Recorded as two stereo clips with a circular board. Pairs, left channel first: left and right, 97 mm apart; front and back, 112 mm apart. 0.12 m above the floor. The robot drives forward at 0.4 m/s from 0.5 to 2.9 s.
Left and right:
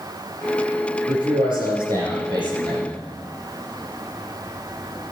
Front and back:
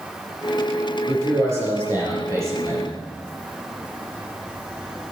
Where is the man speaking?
115° right, 5.5 m; by 3.0 s 120° right, 6 m.